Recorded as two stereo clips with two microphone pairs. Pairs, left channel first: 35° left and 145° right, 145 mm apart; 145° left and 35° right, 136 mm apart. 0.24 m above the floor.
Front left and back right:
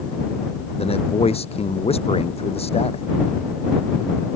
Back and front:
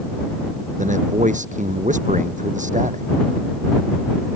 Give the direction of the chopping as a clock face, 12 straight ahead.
I don't hear chopping.